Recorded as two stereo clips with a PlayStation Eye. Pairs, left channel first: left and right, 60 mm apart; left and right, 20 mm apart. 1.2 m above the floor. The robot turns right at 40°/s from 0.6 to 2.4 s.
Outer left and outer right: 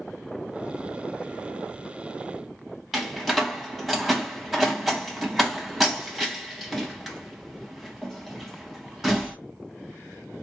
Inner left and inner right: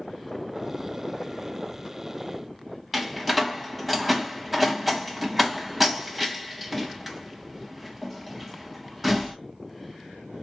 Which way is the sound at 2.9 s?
Centre (ahead or behind).